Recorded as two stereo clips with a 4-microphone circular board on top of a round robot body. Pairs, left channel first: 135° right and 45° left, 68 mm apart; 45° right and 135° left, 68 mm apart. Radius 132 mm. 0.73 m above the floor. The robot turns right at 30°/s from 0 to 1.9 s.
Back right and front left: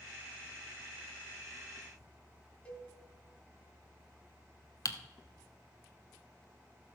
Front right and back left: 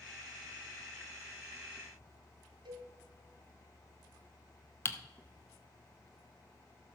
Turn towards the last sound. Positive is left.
turn(degrees=-100)